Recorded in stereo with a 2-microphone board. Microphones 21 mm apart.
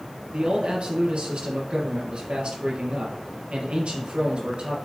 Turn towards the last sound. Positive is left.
turn(degrees=-70)  # may be behind; listen again after turning